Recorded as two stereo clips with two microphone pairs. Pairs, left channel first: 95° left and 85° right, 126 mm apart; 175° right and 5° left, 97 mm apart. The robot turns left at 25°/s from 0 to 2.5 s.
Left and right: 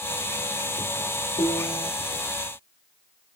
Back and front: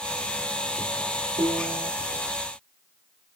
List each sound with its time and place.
1.4 s a piano: 45° left, 0.8 m; by 1.9 s 30° left, 0.8 m